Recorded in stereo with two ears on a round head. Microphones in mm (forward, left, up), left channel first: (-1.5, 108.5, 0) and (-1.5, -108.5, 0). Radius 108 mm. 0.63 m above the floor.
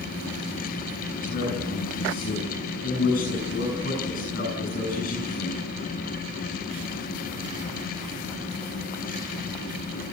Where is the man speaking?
40° left (ahead or behind), 7.5 m.